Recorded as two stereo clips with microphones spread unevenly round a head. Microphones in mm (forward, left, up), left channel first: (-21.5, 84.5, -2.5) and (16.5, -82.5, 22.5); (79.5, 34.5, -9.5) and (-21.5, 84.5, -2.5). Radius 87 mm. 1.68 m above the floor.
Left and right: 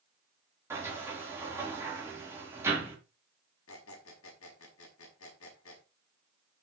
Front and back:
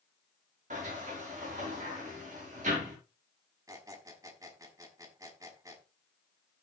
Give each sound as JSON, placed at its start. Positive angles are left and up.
{"t": 0.7, "sound": "a sliding door", "azimuth_deg": -155, "distance_m": 4.5}
{"t": 3.7, "sound": "a squeak", "azimuth_deg": 95, "distance_m": 6.0}